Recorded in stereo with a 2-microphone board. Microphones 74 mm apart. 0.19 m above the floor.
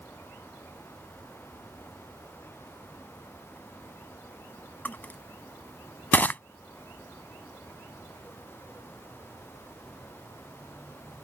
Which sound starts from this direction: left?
Crushing, at 4.8 s.